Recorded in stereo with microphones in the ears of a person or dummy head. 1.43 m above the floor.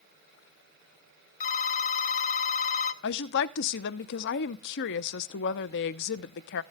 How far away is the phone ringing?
About 1.0 m.